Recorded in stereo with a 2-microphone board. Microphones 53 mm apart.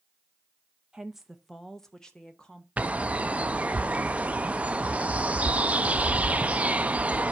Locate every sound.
0.9 s a woman speaking: 15° right (ahead or behind), 0.6 m; by 2.7 s 15° left (ahead or behind), 1.4 m
2.8 s a bird: 25° right (ahead or behind), 0.5 m